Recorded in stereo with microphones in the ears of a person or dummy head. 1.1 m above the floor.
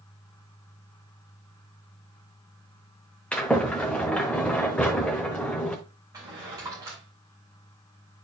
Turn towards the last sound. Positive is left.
turn(degrees=-20)  # may be behind; listen again after turning